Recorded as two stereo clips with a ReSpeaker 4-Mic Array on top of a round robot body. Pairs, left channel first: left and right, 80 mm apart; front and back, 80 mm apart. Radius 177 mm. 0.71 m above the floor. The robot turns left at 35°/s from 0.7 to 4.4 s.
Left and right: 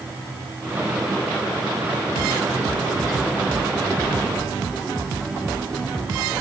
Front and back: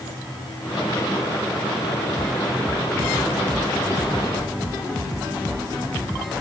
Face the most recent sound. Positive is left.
No sound to turn to.